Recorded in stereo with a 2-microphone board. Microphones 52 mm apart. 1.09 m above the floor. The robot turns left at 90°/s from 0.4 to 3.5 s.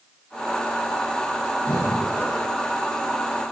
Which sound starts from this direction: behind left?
Breathing, at 1.6 s.